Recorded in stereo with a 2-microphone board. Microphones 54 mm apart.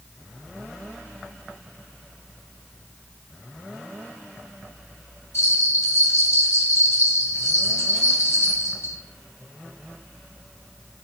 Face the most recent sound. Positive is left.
turn(degrees=60)  # may be behind; listen again after turning